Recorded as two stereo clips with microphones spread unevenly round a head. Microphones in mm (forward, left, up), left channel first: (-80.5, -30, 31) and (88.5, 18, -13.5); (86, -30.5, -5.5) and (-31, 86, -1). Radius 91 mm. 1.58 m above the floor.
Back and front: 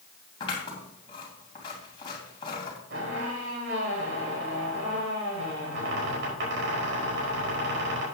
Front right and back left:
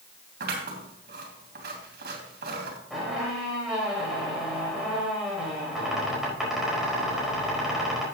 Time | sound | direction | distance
0.4 | scissors | 140° left | 2.5 m
2.9 | a squeak | 45° left | 5 m